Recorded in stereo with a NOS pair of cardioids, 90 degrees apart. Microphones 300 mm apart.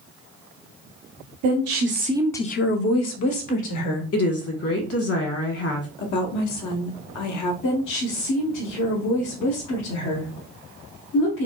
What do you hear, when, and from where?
1.4 s a woman speaking: 60° right, 1.0 m; by 4.0 s 75° left, 1.9 m
4.1 s a woman speaking: 50° left, 1.5 m
6.0 s a woman speaking: 70° left, 1.0 m
7.6 s a woman speaking: 70° left, 1.2 m